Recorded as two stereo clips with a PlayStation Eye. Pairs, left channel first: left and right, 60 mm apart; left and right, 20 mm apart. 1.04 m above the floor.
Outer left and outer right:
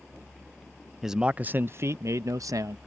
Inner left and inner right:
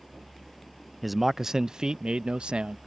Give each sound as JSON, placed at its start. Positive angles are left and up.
{"t": 1.0, "sound": "a man speaking", "side_deg": -5}